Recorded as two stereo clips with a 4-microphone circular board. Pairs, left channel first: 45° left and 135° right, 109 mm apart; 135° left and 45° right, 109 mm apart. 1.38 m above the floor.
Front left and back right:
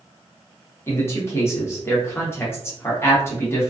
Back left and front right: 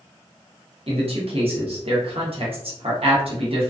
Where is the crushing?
No crushing in this recording.